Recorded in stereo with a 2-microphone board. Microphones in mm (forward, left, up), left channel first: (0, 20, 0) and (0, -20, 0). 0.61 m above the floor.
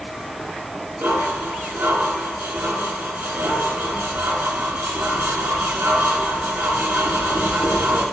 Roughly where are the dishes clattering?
Right.